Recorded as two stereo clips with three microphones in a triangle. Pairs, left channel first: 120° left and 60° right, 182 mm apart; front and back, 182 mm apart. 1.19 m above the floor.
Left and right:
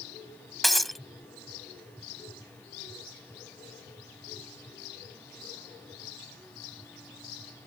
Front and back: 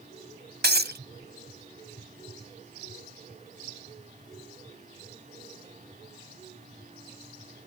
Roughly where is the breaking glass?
Behind right.